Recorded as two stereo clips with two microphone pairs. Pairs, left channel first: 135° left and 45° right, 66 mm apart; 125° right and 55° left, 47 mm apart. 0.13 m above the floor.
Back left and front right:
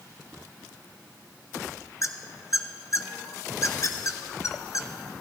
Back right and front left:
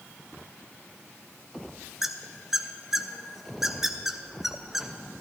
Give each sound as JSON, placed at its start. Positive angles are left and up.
{"t": 2.0, "sound": "a squeak", "azimuth_deg": 135, "distance_m": 0.6}